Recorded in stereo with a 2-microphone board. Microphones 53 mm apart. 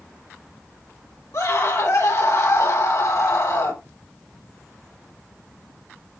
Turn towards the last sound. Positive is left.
turn(degrees=70)  # may be behind; listen again after turning